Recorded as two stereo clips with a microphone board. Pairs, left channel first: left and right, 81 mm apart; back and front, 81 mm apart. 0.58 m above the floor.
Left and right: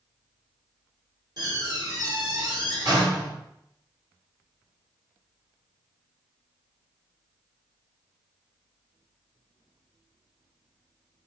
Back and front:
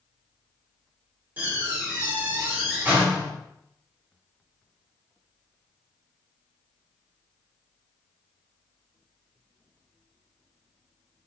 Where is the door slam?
65° right, 1.5 m.